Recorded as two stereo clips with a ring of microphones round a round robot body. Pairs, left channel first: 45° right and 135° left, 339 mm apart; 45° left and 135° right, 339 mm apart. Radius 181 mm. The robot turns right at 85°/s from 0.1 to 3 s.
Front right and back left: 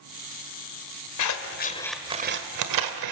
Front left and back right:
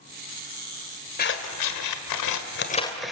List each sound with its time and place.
1.2 s scissors: 20° right, 1.5 m; by 3.1 s 135° left, 1.5 m